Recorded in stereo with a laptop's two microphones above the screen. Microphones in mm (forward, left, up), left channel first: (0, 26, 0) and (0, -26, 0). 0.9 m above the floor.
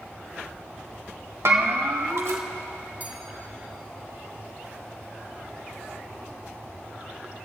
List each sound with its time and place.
1.4 s a bell: 70° right (ahead or behind), 1.3 m
3.0 s a bell: 35° right (ahead or behind), 1.6 m